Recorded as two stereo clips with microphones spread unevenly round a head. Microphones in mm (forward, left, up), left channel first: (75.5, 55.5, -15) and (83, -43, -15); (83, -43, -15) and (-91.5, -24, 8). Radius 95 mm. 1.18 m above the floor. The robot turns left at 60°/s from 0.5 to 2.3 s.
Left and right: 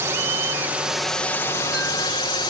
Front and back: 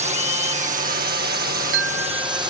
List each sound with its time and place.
0.0 s a drone: 145° right; by 2.5 s 105° left
1.3 s a chime: 150° right; by 2.5 s 155° left